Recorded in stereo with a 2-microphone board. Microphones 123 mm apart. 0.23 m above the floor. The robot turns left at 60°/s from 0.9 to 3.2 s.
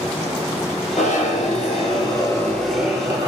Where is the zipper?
105° left, 1.2 m; by 3.3 s 30° right, 1.2 m.